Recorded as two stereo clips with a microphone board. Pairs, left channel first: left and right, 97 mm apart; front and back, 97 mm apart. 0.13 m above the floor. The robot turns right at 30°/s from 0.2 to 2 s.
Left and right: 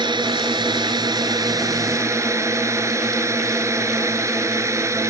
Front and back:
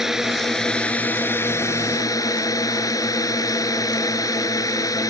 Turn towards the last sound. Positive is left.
turn(degrees=-40)